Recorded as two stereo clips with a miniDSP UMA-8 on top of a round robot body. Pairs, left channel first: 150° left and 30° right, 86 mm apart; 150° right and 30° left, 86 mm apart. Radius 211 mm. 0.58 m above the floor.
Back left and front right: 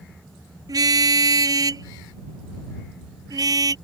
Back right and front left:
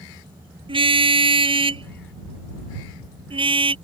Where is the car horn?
15° left.